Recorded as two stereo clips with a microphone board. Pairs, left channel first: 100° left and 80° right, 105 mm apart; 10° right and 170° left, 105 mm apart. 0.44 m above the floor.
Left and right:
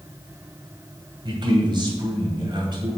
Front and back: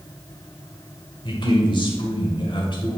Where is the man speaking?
45° right, 1.9 m.